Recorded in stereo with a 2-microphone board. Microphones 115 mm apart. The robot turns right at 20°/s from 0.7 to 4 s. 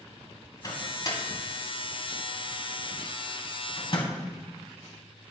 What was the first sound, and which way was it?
A microwave, 35° left (ahead or behind).